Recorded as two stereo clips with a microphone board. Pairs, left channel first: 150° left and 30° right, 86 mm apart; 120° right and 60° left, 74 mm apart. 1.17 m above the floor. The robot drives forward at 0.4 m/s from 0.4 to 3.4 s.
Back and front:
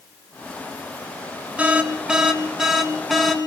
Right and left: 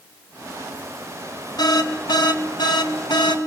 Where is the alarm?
105° right, 2.5 m; by 3.4 s 120° right, 2.5 m.